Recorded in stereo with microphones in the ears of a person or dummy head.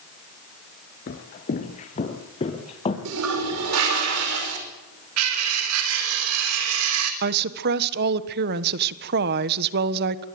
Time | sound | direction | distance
1.1 | footsteps | 40° left (ahead or behind) | 1.9 m
3.0 | a toilet flushing | 85° right | 5.5 m
5.2 | cutlery clinking | 75° right (ahead or behind) | 3.5 m
7.2 | a woman speaking | 55° right (ahead or behind) | 1.3 m